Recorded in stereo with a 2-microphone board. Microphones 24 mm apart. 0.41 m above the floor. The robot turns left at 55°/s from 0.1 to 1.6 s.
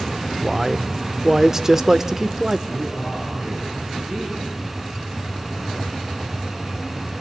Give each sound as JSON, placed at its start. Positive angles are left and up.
{"t": 0.4, "sound": "a man speaking", "side_deg": -15, "distance_m": 0.9}
{"t": 2.7, "sound": "a man speaking", "side_deg": -45, "distance_m": 9.5}